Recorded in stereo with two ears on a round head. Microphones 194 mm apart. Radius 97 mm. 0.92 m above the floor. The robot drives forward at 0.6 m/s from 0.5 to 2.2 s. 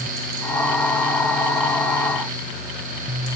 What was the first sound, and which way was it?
Only background noise.